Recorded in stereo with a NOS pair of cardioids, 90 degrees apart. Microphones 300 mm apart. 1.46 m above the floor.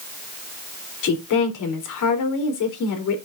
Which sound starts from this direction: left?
A woman speaking, at 1.0 s.